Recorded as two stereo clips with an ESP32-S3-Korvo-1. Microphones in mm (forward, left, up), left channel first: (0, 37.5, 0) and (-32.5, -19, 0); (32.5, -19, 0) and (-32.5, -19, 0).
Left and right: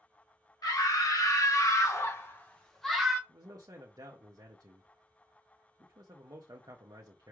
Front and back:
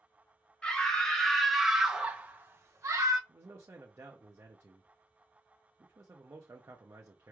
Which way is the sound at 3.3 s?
135° right.